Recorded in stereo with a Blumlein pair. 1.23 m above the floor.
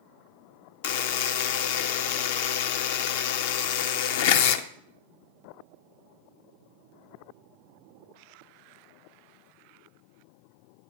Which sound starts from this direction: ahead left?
A buzzer, at 0.8 s.